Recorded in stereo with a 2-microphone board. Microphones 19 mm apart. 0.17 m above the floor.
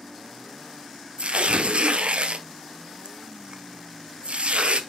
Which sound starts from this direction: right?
Tearing paper, at 1.2 s.